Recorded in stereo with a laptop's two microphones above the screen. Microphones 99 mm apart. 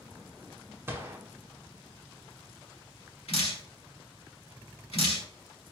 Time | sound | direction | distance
0.9 | a gunshot | 25° right (ahead or behind) | 0.8 m
3.3 | dripping | 80° left | 1.5 m